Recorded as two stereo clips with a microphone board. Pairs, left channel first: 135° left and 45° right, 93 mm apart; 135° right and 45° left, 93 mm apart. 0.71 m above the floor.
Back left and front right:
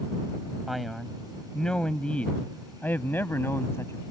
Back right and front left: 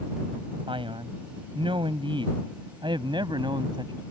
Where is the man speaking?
45° left; by 4.0 s 75° left.